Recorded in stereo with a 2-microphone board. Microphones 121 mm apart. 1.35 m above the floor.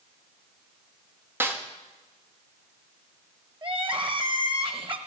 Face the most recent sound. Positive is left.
turn(degrees=-45)  # may be behind; listen again after turning